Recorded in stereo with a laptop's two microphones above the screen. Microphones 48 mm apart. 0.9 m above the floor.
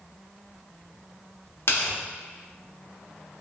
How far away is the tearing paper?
About 1.1 m.